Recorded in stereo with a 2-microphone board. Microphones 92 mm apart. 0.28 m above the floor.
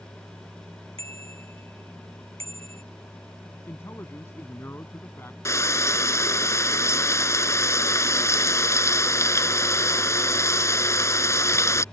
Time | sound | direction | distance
1.0 | a bicycle bell | 85° right | ?
3.7 | a man speaking | 25° left (ahead or behind) | ?
5.5 | frying | 30° left (ahead or behind) | ?